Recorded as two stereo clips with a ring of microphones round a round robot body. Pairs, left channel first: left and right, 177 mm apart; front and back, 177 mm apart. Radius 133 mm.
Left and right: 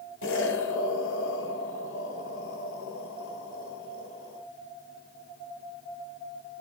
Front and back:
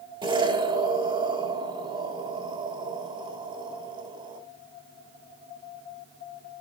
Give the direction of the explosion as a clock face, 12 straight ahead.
8 o'clock.